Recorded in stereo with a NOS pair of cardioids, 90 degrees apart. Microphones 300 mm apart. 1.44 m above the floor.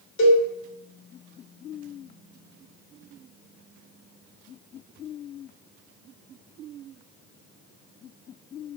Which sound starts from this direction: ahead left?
A cowbell, at 0.2 s.